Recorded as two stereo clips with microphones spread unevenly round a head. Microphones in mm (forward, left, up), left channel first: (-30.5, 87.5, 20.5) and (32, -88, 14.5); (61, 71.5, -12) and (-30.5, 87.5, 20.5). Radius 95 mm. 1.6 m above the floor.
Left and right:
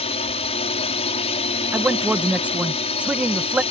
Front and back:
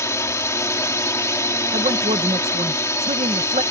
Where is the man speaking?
150° right.